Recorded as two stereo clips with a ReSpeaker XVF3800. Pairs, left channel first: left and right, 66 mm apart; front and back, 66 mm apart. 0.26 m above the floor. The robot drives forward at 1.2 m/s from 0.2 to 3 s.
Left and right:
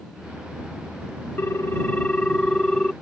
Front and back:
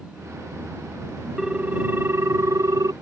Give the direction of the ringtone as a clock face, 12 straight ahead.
9 o'clock.